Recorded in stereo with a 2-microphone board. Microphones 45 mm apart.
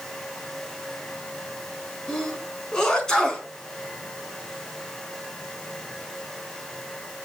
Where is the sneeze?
15° left (ahead or behind), 4 m.